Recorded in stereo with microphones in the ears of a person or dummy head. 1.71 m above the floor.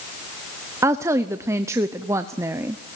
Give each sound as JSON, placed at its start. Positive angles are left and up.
{"t": 0.8, "sound": "a woman speaking", "side_deg": -15, "distance_m": 0.7}